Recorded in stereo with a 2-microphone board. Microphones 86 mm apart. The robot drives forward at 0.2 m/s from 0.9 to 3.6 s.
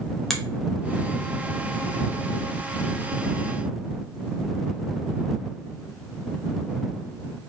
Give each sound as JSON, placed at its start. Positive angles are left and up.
{"t": 0.3, "sound": "a finger snap", "side_deg": 0, "distance_m": 0.8}